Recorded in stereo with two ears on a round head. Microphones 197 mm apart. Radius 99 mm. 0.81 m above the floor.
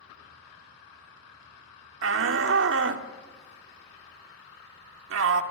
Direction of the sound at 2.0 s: 60° right (ahead or behind).